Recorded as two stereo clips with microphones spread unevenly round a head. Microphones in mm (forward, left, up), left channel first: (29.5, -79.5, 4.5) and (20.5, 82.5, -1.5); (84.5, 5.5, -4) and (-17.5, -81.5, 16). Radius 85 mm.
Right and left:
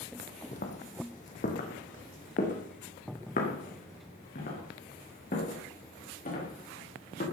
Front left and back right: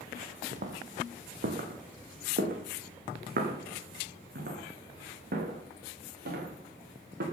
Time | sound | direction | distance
0.5 | footsteps | 130° right | 2 m